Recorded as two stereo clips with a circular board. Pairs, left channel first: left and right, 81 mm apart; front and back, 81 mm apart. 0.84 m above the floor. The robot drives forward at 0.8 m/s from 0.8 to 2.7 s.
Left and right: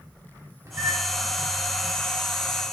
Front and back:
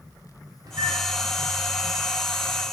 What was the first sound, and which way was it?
A microwave, 145° right.